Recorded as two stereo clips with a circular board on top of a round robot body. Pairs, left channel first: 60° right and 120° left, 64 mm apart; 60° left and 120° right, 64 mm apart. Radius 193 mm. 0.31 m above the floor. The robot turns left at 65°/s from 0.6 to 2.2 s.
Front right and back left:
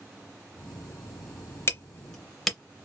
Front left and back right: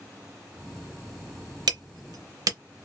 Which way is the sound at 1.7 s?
115° right.